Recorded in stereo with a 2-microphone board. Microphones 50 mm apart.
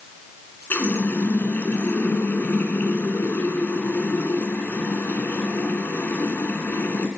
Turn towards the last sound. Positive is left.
turn(degrees=45)  # may be behind; listen again after turning